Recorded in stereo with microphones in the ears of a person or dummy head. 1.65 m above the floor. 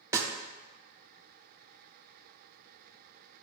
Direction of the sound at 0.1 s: 20° right (ahead or behind).